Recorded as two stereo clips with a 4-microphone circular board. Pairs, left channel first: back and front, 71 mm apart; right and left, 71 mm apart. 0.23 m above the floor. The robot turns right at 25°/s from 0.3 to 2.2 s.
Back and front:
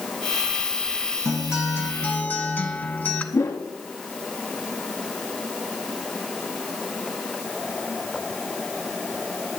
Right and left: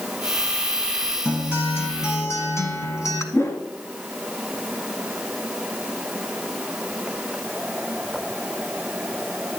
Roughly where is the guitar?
Behind right.